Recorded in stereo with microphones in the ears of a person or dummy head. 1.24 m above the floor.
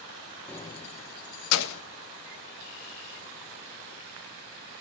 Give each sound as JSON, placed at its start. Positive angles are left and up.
{"t": 0.5, "sound": "keys jangling", "side_deg": 5, "distance_m": 0.6}